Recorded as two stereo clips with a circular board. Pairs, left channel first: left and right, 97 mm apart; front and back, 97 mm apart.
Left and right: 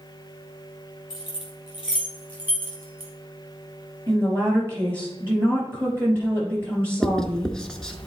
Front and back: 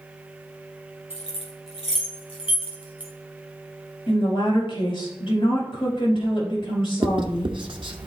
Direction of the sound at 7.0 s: 175° left.